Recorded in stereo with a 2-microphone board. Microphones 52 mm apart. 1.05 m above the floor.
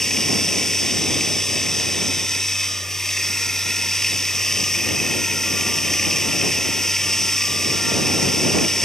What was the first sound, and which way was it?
Running water, 10° left (ahead or behind).